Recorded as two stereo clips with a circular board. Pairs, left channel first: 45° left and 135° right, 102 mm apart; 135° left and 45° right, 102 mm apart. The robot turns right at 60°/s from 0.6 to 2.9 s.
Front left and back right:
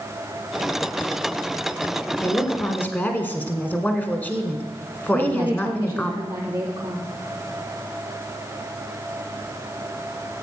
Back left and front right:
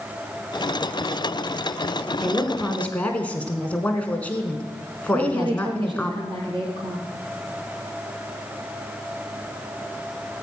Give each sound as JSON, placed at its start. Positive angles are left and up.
{"t": 2.2, "sound": "a woman speaking", "azimuth_deg": 45, "distance_m": 1.3}
{"t": 5.1, "sound": "a woman speaking", "azimuth_deg": -70, "distance_m": 3.5}